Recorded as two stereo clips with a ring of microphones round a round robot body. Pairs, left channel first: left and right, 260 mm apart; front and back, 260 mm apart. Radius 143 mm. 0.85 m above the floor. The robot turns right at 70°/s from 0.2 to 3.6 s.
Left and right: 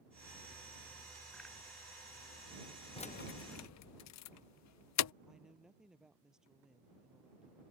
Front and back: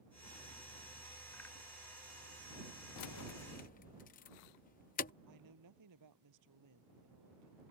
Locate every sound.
3.0 s keys jangling: 20° left; by 5.1 s 65° left
5.3 s a woman speaking: straight behind